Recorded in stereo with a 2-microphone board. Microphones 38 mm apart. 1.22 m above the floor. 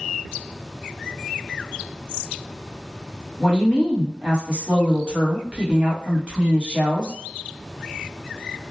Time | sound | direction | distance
3.4 | a woman speaking | 25° right (ahead or behind) | 1.0 m